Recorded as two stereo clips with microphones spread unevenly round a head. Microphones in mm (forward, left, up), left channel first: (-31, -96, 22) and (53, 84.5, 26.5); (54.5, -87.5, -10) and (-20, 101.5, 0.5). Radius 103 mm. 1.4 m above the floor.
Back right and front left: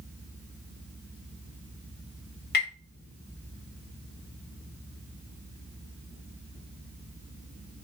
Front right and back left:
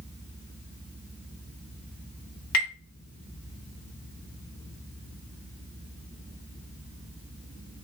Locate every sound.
2.5 s tapping: 75° right, 2 m